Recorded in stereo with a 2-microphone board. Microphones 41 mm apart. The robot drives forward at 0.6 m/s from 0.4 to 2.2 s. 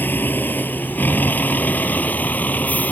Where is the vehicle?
55° left (ahead or behind); by 2.9 s 45° left (ahead or behind).